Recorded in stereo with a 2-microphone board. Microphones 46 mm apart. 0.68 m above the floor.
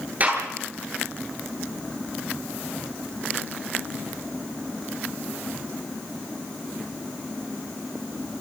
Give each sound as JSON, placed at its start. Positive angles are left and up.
{"t": 0.2, "sound": "a gunshot", "side_deg": -35, "distance_m": 10.0}